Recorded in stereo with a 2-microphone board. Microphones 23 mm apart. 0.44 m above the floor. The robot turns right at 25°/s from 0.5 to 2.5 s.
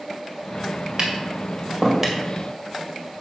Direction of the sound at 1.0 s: 40° right (ahead or behind).